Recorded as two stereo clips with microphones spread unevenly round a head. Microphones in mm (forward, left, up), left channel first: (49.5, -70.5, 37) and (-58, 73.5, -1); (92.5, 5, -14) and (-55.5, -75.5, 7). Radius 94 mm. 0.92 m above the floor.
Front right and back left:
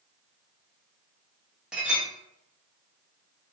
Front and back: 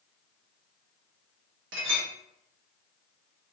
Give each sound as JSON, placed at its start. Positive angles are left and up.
{"t": 1.7, "sound": "a clink", "azimuth_deg": -145, "distance_m": 0.7}